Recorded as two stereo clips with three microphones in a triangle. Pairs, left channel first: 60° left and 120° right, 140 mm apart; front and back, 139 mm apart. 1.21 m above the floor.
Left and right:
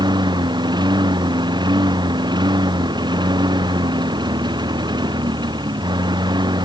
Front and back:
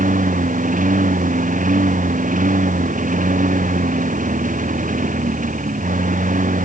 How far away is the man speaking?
No man speaking in this recording.